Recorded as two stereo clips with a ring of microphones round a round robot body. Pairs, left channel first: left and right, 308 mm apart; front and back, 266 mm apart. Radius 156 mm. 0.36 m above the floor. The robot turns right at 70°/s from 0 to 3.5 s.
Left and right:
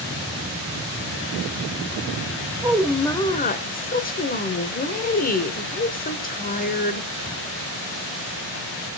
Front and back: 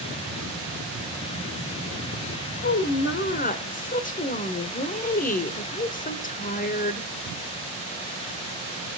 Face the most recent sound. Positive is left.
turn(degrees=40)